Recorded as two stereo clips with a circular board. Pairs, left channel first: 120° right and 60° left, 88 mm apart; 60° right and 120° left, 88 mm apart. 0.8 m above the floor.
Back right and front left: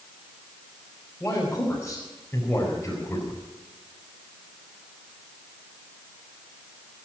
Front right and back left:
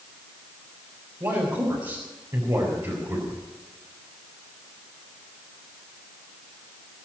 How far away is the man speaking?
About 4.5 m.